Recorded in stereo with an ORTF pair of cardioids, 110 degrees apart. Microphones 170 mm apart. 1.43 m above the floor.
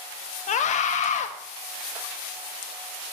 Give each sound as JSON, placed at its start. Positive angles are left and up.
{"t": 0.5, "sound": "a scream", "azimuth_deg": 45, "distance_m": 0.9}